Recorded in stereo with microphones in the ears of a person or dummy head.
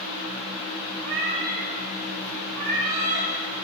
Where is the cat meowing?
65° right (ahead or behind), 4 m.